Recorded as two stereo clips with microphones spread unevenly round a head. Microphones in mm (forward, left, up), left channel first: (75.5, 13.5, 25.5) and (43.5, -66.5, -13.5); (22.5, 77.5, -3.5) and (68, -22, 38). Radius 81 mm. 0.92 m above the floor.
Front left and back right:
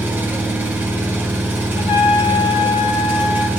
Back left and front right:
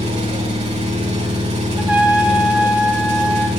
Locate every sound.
0.0 s an engine running: 40° right, 5.5 m
1.8 s a trumpet: 25° left, 2 m